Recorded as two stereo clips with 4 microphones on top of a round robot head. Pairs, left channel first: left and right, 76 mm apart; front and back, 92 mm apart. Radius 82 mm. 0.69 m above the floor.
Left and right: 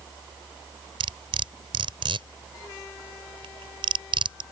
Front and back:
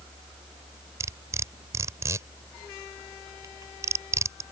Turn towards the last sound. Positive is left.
turn(degrees=-115)